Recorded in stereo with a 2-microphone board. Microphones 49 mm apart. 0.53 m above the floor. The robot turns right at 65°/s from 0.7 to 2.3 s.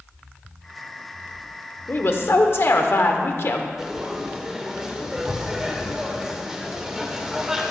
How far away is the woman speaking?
About 1.1 m.